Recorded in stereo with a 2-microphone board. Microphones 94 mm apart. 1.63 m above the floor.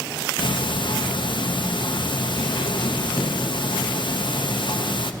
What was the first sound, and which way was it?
Ticking, 60° left (ahead or behind).